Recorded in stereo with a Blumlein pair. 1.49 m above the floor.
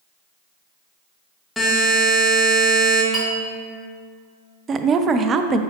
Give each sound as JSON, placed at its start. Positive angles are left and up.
{"t": 1.6, "sound": "a buzzer", "azimuth_deg": 5, "distance_m": 1.9}
{"t": 3.1, "sound": "a clink", "azimuth_deg": 5, "distance_m": 2.0}
{"t": 4.7, "sound": "a woman speaking", "azimuth_deg": -25, "distance_m": 0.5}